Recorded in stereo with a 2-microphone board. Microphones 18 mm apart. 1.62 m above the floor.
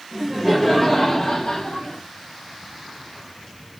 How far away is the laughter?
About 1.3 m.